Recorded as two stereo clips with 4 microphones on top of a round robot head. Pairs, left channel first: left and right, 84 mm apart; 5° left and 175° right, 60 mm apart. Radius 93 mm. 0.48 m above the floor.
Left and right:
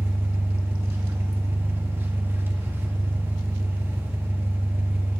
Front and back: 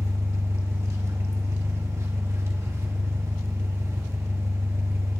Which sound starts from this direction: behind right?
An engine running, at 0.0 s.